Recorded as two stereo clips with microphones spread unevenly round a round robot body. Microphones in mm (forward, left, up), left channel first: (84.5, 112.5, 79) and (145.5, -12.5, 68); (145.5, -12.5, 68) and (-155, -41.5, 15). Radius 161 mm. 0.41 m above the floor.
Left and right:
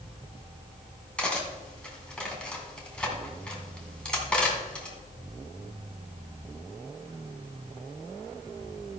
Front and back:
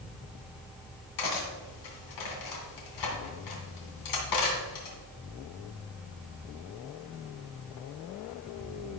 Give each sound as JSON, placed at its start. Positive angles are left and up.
{"t": 1.2, "sound": "cutlery clinking", "azimuth_deg": 30, "distance_m": 2.5}